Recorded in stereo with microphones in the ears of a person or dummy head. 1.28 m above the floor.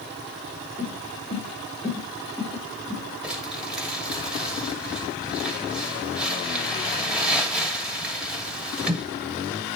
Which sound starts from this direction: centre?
Crumpling, at 3.2 s.